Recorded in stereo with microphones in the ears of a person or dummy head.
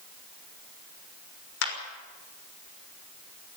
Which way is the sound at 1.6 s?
85° left.